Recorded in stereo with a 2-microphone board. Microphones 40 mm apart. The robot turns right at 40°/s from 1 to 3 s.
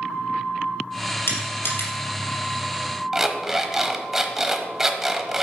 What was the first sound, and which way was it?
Crushing, 80° left.